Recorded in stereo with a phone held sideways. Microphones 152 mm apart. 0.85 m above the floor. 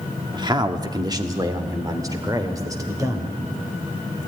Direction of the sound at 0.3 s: 30° right (ahead or behind).